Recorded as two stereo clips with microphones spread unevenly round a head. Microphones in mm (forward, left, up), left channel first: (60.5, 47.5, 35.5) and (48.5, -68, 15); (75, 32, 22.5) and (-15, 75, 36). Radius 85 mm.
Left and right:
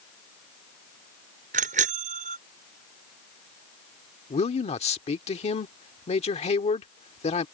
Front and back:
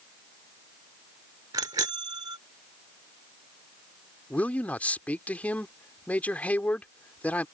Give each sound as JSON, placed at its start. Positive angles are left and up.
{"t": 1.5, "sound": "a bicycle bell", "azimuth_deg": -135}
{"t": 4.3, "sound": "a man speaking", "azimuth_deg": 50}